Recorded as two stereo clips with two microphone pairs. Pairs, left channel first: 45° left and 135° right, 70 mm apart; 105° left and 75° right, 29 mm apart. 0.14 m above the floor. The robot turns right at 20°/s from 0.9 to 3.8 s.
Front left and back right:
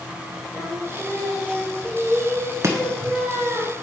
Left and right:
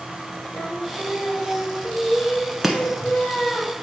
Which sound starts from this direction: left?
Singing, at 0.5 s.